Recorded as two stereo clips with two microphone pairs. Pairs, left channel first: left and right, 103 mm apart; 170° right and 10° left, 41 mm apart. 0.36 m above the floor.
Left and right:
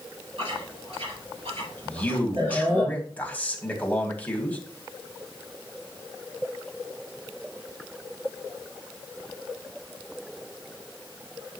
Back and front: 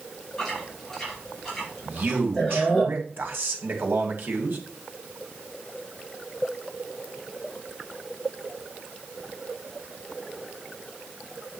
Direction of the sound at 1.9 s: 15° left.